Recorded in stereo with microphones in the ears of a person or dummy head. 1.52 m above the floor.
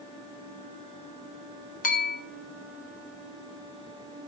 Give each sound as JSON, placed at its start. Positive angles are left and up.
{"t": 1.8, "sound": "a bell", "side_deg": 45, "distance_m": 0.5}